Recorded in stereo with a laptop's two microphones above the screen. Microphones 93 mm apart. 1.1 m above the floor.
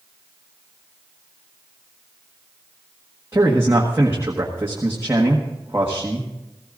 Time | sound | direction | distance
3.3 | a man speaking | 25° right (ahead or behind) | 1.5 m